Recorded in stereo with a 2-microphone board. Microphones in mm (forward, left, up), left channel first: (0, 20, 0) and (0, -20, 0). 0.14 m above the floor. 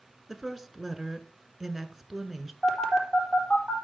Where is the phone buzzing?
5° left (ahead or behind), 3.5 m.